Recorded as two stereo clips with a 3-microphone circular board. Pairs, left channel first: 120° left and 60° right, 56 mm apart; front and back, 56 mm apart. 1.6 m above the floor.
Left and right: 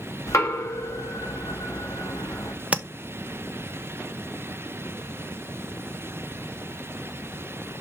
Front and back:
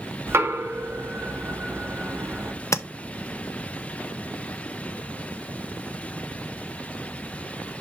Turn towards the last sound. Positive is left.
turn(degrees=5)